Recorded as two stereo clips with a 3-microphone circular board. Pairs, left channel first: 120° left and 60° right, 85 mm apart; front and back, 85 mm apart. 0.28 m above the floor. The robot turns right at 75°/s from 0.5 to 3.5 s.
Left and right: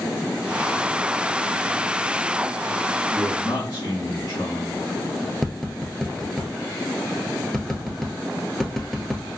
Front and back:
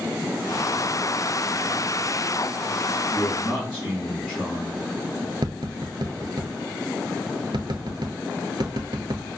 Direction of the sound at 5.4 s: 155° right.